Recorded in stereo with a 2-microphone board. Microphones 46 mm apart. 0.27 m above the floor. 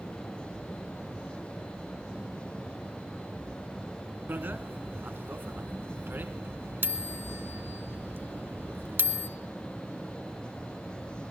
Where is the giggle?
I don't hear a giggle.